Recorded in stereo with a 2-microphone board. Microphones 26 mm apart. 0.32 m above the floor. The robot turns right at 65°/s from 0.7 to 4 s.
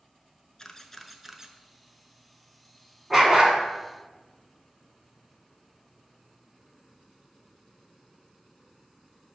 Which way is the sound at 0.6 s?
20° left (ahead or behind).